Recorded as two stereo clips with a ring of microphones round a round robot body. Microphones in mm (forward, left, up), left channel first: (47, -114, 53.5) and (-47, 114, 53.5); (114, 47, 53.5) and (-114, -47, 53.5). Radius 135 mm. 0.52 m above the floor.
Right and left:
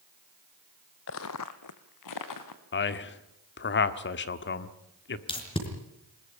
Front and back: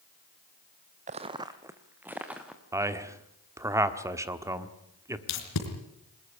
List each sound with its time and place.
1.1 s footsteps: 100° right, 0.7 m; by 2.6 s 70° right, 2.5 m
2.7 s a man speaking: 85° right, 1.4 m
5.3 s tape being pulled: 5° left, 4 m